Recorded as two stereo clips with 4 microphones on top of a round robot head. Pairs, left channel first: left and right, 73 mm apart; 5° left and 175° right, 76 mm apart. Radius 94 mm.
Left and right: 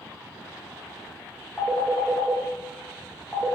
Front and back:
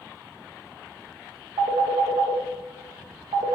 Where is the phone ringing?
175° left, 0.9 m.